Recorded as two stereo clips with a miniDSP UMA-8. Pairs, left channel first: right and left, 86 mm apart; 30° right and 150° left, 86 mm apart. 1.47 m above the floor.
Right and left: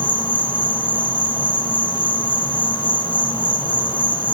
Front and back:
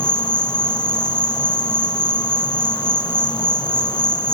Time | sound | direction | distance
0.0 | an insect | 65° right | 1.2 m